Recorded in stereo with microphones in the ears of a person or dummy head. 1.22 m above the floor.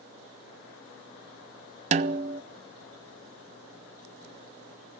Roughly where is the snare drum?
Right.